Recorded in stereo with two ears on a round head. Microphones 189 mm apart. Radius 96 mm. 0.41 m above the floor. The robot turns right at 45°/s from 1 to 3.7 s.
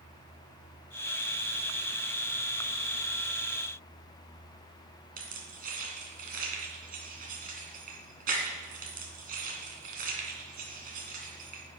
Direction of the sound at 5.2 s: 45° right (ahead or behind).